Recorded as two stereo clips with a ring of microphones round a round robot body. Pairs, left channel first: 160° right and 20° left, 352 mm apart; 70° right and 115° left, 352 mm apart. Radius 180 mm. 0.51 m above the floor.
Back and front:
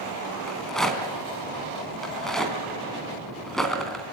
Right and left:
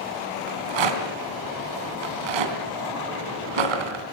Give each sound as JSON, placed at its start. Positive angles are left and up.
{"t": 0.5, "sound": "a rattle", "azimuth_deg": 115, "distance_m": 3.5}